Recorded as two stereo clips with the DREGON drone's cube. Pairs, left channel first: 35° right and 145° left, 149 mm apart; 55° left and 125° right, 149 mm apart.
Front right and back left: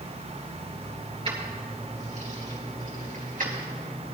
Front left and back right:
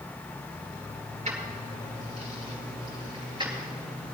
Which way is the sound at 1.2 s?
165° right.